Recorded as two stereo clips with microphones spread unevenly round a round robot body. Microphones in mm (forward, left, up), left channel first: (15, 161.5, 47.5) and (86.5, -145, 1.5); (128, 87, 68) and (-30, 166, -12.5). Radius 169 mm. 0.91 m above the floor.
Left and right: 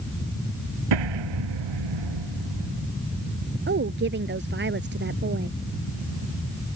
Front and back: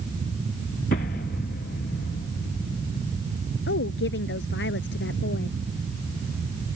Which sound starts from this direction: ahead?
A woman speaking, at 3.7 s.